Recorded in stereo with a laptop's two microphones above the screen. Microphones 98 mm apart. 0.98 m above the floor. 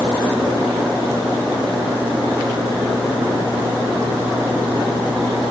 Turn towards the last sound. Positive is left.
No sound to turn to.